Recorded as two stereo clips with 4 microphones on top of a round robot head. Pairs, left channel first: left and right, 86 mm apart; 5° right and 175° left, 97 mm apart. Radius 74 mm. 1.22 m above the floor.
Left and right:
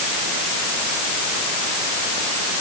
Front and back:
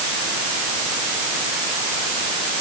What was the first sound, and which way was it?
Only background noise.